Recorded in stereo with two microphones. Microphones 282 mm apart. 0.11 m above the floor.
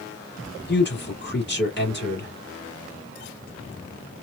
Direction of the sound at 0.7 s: 40° left (ahead or behind).